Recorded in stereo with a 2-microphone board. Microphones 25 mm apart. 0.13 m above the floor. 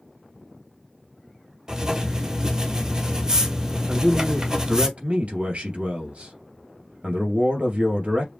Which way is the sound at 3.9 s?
55° right (ahead or behind).